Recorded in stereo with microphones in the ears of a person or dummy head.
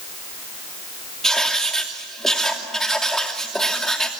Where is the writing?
Centre (ahead or behind), 2.5 m.